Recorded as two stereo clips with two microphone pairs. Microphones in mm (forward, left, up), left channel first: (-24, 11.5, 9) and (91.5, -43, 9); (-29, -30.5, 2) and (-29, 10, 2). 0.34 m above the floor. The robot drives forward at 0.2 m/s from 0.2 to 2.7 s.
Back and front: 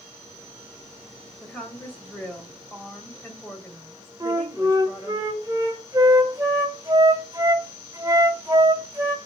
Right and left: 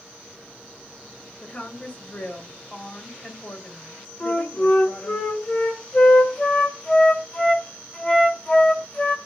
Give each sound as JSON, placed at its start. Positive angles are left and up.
{"t": 1.4, "sound": "a woman speaking", "azimuth_deg": -125, "distance_m": 1.7}
{"t": 4.2, "sound": "a flute", "azimuth_deg": -70, "distance_m": 1.5}